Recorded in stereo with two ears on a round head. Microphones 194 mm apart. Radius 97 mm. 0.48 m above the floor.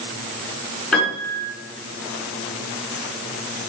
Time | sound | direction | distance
0.9 | a piano | 5° left (ahead or behind) | 5.5 m